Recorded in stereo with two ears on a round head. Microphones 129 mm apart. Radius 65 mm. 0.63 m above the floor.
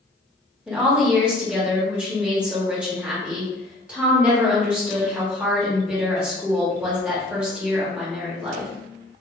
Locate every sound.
0.7 s a woman speaking: 5° right (ahead or behind), 1.3 m